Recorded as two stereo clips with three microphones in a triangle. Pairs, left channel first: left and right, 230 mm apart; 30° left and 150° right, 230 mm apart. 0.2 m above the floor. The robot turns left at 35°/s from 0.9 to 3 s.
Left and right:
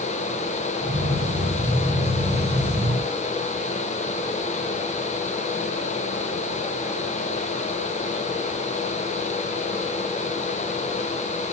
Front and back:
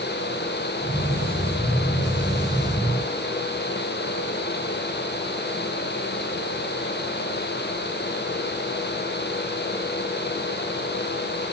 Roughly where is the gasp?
No gasp in this recording.